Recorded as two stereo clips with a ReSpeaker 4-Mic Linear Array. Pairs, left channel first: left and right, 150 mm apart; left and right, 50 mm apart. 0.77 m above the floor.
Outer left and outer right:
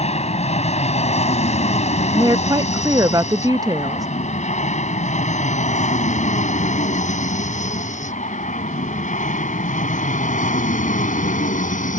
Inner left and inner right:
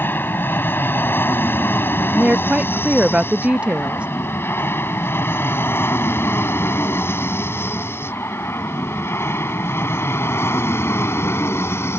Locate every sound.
0.0 s an aircraft: 45° left (ahead or behind); by 12.0 s 55° left (ahead or behind)
2.1 s a woman speaking: 25° right (ahead or behind)